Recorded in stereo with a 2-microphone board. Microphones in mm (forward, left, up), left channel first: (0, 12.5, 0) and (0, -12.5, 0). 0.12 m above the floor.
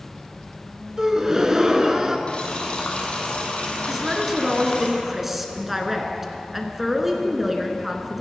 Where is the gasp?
25° right (ahead or behind), 1.1 m.